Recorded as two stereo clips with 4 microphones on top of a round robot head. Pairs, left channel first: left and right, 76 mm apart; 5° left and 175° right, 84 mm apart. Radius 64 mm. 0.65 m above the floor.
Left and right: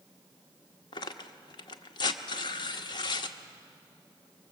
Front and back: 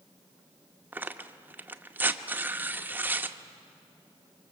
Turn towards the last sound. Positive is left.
turn(degrees=115)